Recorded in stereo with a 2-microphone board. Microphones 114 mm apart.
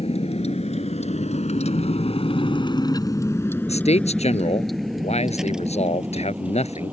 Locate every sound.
0.0 s a vehicle: 70° left (ahead or behind); by 6.9 s 15° right (ahead or behind)
3.7 s a man speaking: 75° left (ahead or behind)